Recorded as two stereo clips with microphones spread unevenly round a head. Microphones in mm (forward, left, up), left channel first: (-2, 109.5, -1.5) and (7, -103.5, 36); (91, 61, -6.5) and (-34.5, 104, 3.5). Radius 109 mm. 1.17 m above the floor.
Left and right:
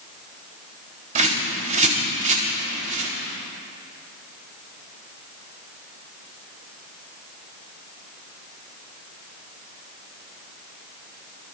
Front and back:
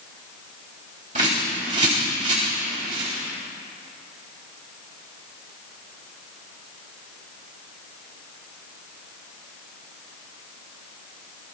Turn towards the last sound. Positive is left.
turn(degrees=-140)